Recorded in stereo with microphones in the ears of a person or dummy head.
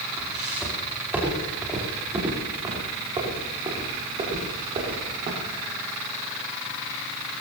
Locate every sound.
0.2 s footsteps: centre (ahead or behind), 5.5 m; by 5.6 s 35° right (ahead or behind), 7 m